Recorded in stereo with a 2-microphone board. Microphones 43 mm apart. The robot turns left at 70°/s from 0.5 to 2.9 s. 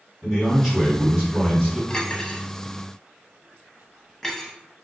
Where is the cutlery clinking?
20° left (ahead or behind), 0.6 m; by 4.5 s 5° left (ahead or behind), 0.6 m.